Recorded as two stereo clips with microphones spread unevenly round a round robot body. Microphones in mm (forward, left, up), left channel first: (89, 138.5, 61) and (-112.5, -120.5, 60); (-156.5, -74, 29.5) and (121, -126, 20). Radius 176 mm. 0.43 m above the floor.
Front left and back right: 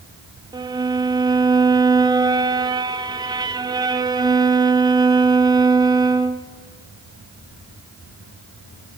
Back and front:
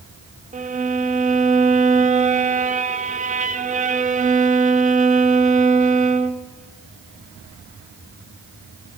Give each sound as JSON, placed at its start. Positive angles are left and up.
{"t": 0.5, "sound": "a violin", "azimuth_deg": -55, "distance_m": 0.8}